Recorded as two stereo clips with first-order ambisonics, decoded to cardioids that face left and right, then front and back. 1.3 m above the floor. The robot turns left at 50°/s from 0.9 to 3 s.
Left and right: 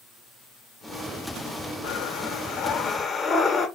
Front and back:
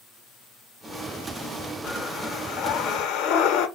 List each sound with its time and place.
1.8 s breathing: 75° left, 0.7 m; by 3.7 s 20° left, 0.7 m